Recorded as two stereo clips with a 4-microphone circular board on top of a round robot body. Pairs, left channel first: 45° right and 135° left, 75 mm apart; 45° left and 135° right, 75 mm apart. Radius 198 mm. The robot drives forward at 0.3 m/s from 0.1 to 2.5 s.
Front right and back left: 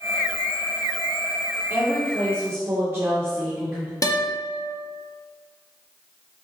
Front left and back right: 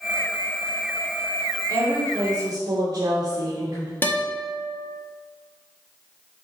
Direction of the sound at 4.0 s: 10° right.